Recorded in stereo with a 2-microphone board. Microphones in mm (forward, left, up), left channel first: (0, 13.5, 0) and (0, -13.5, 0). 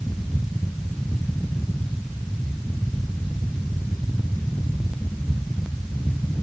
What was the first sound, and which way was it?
Only background noise.